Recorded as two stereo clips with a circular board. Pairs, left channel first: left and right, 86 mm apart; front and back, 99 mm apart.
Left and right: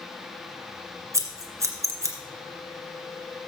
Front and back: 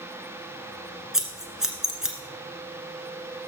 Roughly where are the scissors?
Right.